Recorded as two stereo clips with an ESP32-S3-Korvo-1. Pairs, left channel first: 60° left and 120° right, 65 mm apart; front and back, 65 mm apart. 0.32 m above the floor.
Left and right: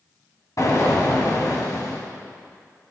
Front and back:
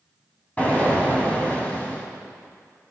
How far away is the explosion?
About 1.8 m.